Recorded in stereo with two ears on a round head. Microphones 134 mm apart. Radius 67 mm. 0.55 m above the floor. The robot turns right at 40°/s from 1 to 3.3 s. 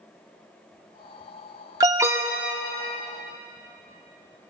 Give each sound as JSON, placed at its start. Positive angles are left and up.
{"t": 1.8, "sound": "an alarm", "side_deg": -25, "distance_m": 0.6}